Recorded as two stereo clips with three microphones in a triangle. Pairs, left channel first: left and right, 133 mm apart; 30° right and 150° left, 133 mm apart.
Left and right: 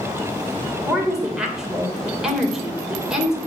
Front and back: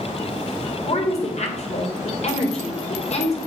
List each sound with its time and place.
0.9 s a woman speaking: 5° right, 2.5 m